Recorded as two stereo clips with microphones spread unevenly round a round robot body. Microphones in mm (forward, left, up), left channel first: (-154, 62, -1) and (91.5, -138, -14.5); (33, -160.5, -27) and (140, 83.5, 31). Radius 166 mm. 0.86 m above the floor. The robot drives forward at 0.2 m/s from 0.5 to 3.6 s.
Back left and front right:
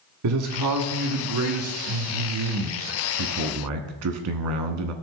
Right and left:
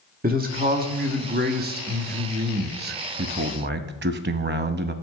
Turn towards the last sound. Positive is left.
turn(degrees=5)